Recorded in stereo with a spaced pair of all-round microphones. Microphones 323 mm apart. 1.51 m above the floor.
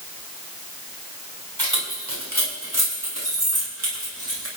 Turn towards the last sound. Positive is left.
turn(degrees=-45)  # may be behind; listen again after turning